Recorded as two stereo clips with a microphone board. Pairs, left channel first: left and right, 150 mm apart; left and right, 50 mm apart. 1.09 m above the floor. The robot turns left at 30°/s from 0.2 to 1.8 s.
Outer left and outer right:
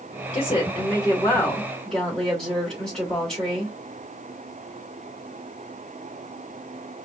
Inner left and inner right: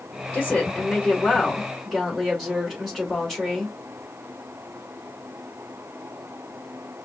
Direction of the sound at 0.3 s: 50° left.